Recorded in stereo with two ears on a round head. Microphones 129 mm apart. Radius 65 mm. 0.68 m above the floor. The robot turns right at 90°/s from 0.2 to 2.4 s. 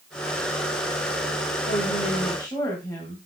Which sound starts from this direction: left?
A woman speaking, at 1.7 s.